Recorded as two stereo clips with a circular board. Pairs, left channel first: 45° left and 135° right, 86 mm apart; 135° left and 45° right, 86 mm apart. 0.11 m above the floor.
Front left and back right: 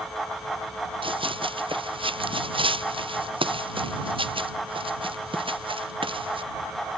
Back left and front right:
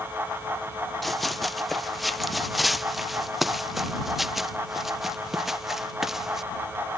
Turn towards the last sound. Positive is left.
turn(degrees=-130)